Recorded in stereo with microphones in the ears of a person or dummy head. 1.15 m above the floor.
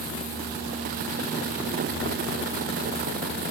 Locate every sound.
Only background noise.